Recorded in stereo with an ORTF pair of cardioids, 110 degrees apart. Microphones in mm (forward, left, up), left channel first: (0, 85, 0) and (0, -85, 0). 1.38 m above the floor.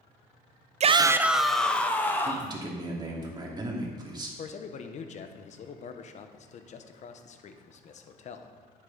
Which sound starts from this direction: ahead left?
A man speaking, at 4.4 s.